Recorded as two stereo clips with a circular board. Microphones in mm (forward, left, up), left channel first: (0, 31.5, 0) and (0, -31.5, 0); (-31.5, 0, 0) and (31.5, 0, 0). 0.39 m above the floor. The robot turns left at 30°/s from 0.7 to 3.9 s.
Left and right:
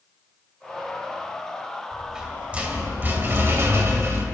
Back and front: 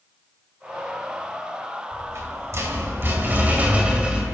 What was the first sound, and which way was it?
A rattle, 5° right.